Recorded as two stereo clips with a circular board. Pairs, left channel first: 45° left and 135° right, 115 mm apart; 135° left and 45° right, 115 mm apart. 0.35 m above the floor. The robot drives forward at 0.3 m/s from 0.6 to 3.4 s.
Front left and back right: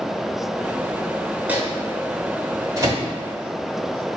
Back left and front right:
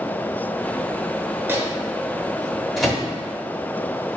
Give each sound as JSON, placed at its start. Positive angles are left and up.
{"t": 1.5, "sound": "a microwave", "azimuth_deg": -80, "distance_m": 0.8}